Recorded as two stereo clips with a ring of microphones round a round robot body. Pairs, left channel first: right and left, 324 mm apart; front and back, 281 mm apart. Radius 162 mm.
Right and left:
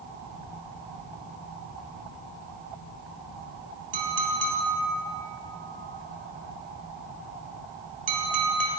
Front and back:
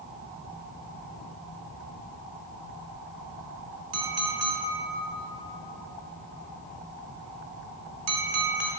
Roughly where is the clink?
Behind left.